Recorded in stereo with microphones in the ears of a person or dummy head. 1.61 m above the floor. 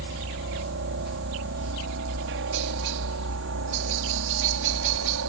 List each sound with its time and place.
0.0 s a helicopter: 60° right (ahead or behind); by 5.3 s 70° right (ahead or behind)